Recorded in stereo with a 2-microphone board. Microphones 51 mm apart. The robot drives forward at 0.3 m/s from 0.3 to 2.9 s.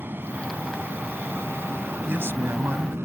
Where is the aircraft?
40° right (ahead or behind); by 3.1 s 55° right (ahead or behind).